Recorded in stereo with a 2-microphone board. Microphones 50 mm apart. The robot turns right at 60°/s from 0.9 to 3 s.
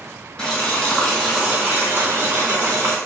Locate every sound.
0.4 s boiling: 165° left, 2.0 m; by 3.0 s 70° right, 2.0 m